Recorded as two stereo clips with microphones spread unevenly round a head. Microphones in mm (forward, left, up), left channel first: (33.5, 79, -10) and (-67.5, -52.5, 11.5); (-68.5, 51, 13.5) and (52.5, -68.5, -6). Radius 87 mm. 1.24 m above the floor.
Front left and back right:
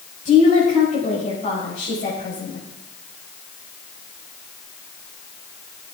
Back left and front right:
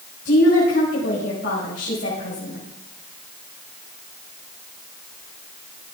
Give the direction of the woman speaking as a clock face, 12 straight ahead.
9 o'clock.